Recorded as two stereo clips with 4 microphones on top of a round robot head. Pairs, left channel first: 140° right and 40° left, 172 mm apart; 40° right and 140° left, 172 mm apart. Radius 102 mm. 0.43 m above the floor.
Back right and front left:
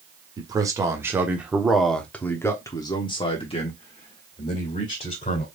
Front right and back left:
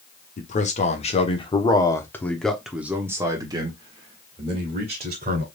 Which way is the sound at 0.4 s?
20° right.